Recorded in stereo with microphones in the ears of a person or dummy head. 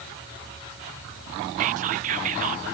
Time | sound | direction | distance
1.6 | whispering | 40° right (ahead or behind) | ?